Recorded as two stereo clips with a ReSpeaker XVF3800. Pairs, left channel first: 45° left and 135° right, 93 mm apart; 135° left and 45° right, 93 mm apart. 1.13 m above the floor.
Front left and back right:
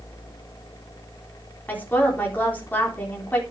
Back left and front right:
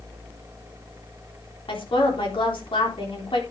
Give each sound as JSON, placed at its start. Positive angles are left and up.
{"t": 1.7, "sound": "a woman speaking", "azimuth_deg": 115, "distance_m": 3.5}